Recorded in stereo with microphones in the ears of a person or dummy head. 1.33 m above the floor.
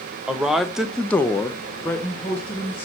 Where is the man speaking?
Centre (ahead or behind), 0.9 m; by 2.9 s 5° left (ahead or behind), 1.5 m.